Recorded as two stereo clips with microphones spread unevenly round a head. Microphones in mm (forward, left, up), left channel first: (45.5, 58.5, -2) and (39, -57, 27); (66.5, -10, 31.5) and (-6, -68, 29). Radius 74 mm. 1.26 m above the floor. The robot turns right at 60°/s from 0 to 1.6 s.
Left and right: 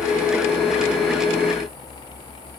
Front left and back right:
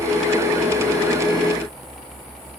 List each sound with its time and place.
Only background noise.